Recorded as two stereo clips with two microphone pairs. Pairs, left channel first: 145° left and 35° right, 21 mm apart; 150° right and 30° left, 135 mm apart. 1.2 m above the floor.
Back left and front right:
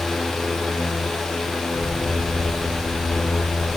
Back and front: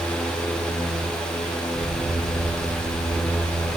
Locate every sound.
1.7 s an explosion: 70° left, 2 m